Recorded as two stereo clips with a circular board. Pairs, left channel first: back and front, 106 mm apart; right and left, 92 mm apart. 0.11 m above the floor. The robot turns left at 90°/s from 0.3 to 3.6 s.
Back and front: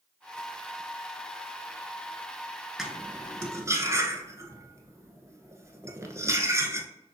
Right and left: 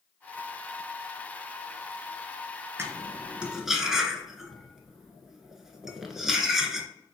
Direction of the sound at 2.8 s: 80° left.